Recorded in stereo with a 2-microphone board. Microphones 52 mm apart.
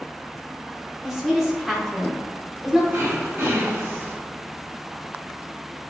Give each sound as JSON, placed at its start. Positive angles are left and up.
{"t": 1.0, "sound": "a woman speaking", "side_deg": 0, "distance_m": 1.2}
{"t": 2.9, "sound": "throat clearing", "side_deg": -40, "distance_m": 1.6}